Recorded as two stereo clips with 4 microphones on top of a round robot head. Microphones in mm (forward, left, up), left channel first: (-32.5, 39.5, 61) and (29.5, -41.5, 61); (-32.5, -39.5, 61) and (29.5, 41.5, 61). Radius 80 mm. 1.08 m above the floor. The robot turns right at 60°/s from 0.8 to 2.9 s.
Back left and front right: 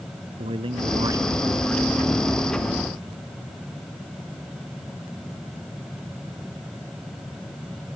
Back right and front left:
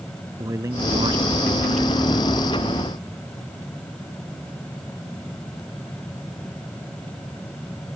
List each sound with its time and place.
0.4 s a man speaking: 10° right; by 2.0 s 60° left